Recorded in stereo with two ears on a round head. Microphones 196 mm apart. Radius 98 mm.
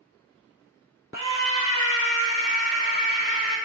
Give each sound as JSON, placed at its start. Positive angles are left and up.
{"t": 1.1, "sound": "a scream", "side_deg": -45, "distance_m": 1.2}